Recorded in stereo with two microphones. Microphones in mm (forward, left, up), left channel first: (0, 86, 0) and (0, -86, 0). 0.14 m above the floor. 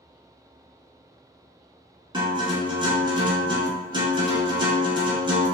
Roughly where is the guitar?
Right.